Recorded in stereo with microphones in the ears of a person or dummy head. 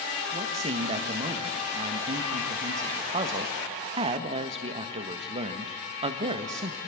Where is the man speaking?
35° right (ahead or behind), 1.6 m.